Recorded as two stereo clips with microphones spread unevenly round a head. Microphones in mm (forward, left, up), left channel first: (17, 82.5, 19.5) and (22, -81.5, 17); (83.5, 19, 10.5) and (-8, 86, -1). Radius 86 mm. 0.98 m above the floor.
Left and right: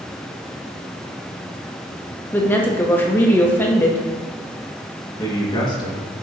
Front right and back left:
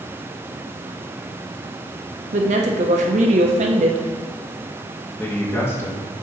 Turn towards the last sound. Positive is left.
turn(degrees=30)